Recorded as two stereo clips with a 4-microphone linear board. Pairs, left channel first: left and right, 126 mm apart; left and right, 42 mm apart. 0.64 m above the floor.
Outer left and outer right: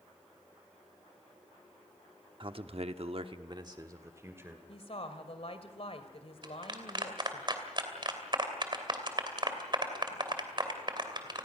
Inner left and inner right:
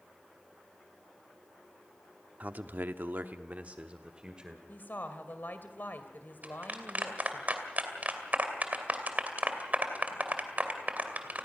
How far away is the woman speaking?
About 2.5 m.